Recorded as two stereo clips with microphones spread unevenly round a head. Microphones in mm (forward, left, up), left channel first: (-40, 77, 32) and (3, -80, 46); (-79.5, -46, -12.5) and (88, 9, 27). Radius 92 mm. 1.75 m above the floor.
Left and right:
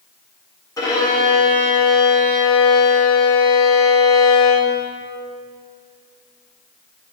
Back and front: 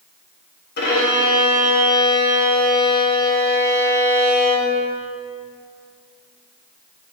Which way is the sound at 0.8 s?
175° left.